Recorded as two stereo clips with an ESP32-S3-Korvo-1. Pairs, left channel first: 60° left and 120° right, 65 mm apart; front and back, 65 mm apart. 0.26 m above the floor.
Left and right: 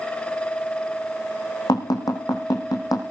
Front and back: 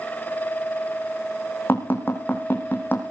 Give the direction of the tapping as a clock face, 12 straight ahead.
10 o'clock.